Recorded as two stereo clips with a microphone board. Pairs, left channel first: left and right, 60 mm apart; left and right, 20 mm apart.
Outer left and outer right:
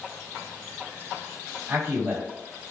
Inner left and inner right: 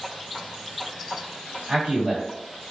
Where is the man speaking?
40° right (ahead or behind), 1.7 m.